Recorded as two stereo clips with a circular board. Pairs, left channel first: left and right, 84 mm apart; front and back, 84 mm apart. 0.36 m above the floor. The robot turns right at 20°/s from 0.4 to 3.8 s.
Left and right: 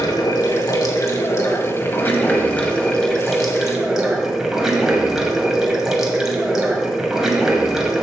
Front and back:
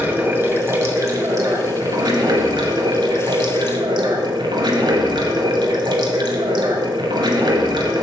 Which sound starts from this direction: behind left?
Running water, at 0.0 s.